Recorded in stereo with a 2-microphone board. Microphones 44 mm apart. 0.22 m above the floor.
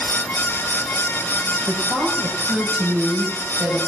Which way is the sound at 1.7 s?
75° right (ahead or behind).